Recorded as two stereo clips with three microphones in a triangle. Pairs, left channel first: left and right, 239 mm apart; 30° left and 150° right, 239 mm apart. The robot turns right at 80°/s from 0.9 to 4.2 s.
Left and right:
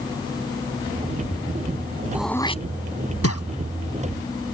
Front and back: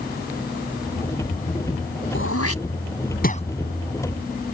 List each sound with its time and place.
2.1 s throat clearing: 10° right; by 3.4 s 95° left